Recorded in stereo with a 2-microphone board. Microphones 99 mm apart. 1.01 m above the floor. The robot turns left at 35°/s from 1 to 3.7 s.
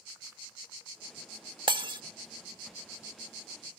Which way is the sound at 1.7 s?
60° right (ahead or behind).